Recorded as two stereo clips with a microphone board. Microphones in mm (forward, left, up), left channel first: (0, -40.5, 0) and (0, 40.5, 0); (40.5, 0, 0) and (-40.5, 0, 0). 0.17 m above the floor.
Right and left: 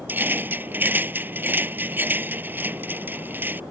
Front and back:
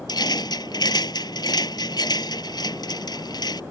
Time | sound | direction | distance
0.1 | a rattle | 25° left | ?